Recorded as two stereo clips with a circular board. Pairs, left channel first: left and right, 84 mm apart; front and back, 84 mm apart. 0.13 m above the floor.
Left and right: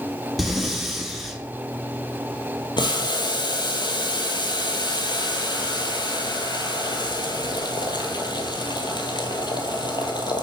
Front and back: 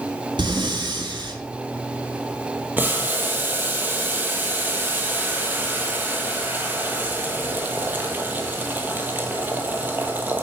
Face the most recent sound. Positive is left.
turn(degrees=115)